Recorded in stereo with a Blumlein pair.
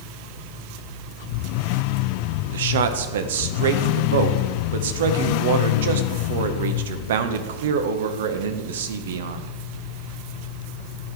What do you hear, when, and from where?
2.5 s a man speaking: 60° right, 0.6 m